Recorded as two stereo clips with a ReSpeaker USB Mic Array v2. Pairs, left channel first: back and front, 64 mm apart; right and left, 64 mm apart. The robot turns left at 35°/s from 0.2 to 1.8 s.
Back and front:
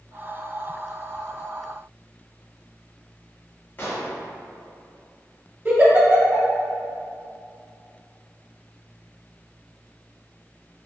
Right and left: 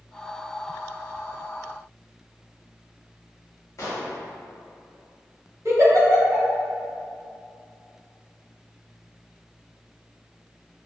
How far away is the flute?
No flute in this recording.